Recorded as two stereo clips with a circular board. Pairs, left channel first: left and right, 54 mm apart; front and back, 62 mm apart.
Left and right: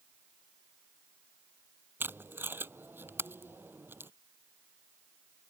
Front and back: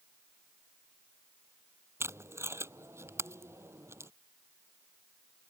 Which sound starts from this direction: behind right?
Tape being pulled, at 2.0 s.